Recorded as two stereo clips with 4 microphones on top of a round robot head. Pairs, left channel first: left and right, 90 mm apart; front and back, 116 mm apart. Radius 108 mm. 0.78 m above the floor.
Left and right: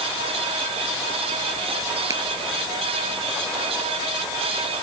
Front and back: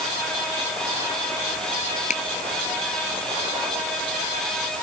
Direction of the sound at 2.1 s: 30° right.